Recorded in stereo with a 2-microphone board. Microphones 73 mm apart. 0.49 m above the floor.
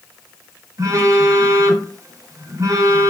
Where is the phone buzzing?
50° right (ahead or behind), 1.1 m.